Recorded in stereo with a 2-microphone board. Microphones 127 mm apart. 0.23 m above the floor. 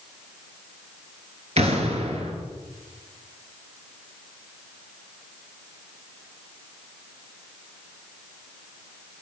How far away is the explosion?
About 1.1 m.